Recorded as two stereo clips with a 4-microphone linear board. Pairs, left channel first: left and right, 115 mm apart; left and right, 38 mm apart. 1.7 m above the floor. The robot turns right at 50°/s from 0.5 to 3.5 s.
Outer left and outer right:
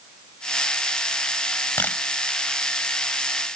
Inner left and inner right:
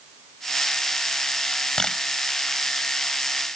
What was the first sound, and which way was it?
A camera shutter, 20° left (ahead or behind).